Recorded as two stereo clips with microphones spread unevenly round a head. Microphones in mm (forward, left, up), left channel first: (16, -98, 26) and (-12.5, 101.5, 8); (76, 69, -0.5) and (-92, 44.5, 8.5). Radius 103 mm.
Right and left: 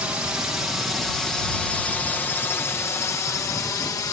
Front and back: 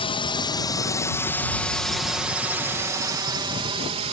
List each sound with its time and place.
0.0 s a drone: 25° left; by 4.1 s 150° right